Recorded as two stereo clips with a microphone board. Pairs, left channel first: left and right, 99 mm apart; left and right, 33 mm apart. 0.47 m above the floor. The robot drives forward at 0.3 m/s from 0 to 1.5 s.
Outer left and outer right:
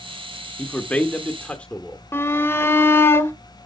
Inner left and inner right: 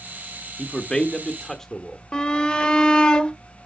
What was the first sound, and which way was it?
A man speaking, 15° left (ahead or behind).